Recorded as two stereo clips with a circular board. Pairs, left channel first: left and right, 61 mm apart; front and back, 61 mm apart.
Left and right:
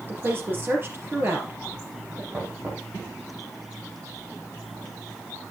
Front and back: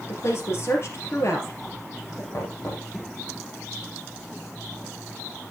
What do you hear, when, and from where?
0.1 s a woman speaking: 40° right, 4 m
2.3 s knocking: 35° right, 3.5 m